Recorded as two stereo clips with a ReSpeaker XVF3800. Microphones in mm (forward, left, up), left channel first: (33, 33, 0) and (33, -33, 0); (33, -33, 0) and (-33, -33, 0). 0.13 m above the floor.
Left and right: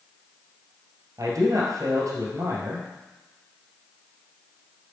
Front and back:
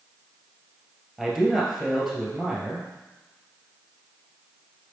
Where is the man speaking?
90° right, 2.5 m.